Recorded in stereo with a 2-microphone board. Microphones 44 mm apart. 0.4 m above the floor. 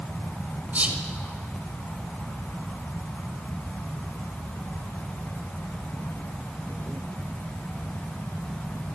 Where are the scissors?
I don't hear scissors.